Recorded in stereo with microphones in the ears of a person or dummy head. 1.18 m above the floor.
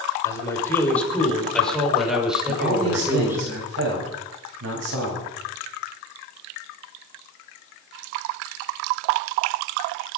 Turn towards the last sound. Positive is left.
turn(degrees=-85)